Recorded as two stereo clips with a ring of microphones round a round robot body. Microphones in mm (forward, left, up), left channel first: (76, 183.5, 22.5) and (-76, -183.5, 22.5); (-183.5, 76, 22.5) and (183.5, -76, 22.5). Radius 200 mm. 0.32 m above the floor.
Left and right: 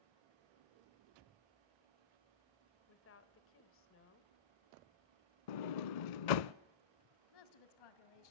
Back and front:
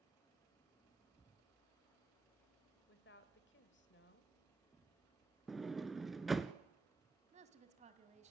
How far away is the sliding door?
About 0.6 m.